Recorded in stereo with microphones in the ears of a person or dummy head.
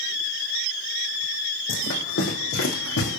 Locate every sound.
1.7 s running footsteps: 55° left (ahead or behind), 5 m; by 3.2 s 65° left (ahead or behind), 4.5 m